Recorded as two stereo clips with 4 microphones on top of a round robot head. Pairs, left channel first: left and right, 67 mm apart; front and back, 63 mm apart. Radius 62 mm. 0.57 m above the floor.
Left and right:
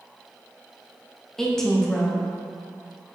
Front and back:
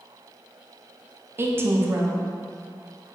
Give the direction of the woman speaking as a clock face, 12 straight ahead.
6 o'clock.